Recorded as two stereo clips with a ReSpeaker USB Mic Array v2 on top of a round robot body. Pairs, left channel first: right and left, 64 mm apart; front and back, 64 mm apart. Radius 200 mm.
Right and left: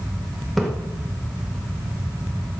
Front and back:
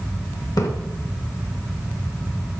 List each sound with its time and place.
0.6 s a splash: 5° right, 2 m